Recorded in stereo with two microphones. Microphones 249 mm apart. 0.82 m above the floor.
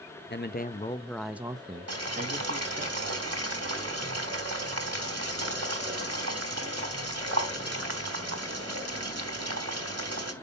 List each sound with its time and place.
0.3 s a man speaking: 45° left (ahead or behind), 0.7 m; by 2.9 s 45° right (ahead or behind), 1.1 m
1.9 s boiling: 80° right, 1.5 m